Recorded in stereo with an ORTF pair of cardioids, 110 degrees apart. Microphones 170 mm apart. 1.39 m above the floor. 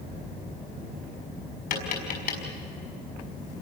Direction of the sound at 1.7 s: 60° left.